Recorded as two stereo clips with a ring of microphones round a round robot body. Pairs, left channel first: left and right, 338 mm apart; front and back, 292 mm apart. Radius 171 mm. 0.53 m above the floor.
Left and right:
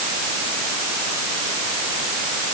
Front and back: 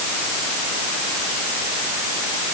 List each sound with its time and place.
Only background noise.